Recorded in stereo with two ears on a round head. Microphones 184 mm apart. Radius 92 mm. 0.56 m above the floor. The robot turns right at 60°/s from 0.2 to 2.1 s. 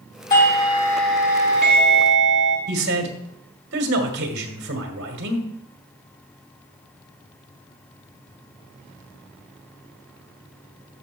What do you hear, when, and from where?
0.3 s a doorbell: 130° left, 3 m; by 2.6 s 120° right, 3 m
2.7 s a man speaking: 55° right (ahead or behind), 1.8 m